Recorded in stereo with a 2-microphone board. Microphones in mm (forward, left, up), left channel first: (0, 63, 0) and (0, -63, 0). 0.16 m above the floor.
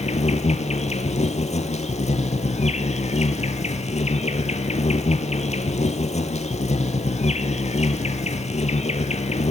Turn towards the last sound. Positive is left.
turn(degrees=65)  # may be behind; listen again after turning